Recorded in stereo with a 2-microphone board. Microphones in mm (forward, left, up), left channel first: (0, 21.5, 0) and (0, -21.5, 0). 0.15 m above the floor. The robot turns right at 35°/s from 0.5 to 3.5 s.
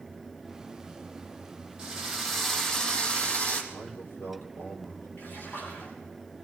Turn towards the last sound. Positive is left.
turn(degrees=55)  # may be behind; listen again after turning